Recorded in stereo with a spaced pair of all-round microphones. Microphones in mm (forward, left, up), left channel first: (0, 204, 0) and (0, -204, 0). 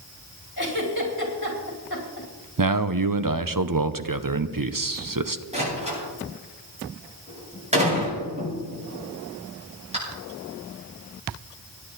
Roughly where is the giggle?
Left.